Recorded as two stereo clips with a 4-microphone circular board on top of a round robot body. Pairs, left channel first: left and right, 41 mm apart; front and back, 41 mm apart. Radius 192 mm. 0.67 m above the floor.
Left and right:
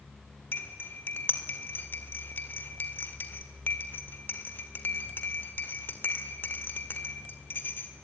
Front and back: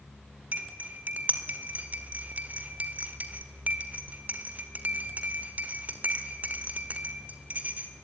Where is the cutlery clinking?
130° left, 2.0 m.